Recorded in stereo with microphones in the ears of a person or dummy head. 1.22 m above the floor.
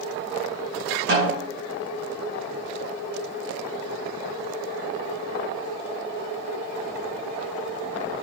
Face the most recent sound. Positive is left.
turn(degrees=-60)  # may be behind; listen again after turning